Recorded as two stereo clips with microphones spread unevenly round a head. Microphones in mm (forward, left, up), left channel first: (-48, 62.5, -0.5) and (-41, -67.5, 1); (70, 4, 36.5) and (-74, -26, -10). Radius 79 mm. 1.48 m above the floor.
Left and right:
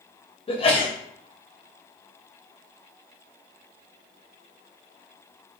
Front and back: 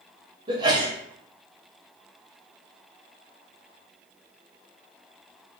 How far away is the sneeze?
About 0.8 m.